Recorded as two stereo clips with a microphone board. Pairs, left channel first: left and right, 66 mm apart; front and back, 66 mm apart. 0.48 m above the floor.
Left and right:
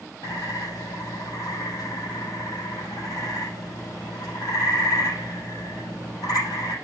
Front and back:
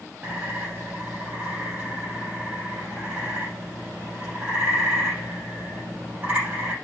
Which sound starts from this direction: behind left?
A bird, at 0.2 s.